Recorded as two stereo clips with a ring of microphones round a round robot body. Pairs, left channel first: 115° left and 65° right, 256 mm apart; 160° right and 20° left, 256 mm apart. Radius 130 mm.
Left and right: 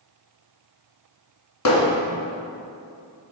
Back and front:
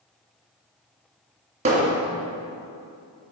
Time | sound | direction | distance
1.6 | hammering | 85° left | 2.5 m